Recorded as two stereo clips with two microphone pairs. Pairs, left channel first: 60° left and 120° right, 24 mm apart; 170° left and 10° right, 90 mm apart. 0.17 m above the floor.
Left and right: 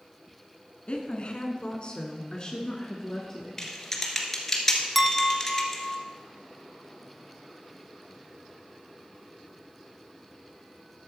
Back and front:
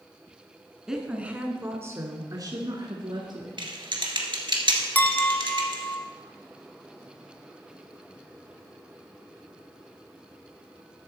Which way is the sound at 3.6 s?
20° right.